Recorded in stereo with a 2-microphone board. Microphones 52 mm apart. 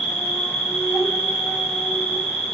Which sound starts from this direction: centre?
An insect, at 0.0 s.